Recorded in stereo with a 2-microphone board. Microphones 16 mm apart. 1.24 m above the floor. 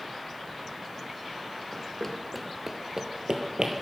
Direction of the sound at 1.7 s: 30° left (ahead or behind).